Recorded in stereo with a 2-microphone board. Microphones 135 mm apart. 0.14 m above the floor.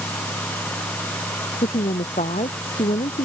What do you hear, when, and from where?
1.6 s a woman speaking: 70° left (ahead or behind)